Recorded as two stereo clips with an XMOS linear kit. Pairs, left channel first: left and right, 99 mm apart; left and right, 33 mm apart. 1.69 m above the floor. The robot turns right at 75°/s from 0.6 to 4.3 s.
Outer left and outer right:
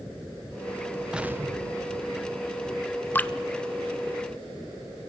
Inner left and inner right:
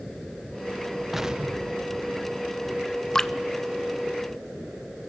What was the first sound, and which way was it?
An explosion, 170° right.